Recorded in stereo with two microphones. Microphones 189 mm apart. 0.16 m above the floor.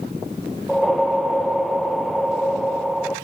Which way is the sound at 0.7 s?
Centre (ahead or behind).